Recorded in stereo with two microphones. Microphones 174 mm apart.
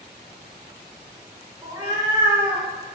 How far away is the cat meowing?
About 0.8 m.